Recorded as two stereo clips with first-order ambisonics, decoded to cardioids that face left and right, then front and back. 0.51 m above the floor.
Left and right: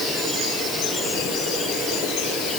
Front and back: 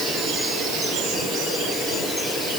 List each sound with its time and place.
Only background noise.